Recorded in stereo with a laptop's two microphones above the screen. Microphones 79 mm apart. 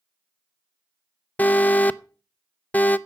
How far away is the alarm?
About 0.5 m.